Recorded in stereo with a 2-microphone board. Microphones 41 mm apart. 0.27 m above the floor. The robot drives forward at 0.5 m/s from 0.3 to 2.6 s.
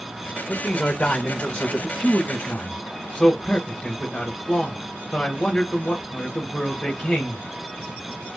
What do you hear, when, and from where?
0.5 s a man speaking: 35° left (ahead or behind), 1.1 m; by 7.5 s 25° left (ahead or behind), 1.5 m